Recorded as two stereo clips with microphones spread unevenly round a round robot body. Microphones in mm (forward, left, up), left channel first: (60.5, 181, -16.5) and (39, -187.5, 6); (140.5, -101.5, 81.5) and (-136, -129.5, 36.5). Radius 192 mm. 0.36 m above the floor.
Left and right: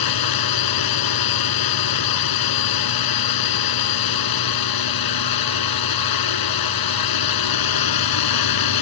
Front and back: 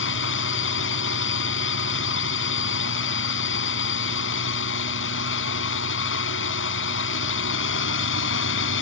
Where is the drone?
60° left.